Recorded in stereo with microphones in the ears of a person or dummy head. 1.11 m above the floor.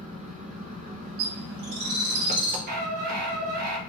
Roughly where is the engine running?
Right.